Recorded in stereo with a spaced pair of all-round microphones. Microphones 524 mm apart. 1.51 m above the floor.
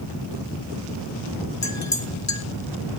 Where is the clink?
30° left (ahead or behind), 1.6 m.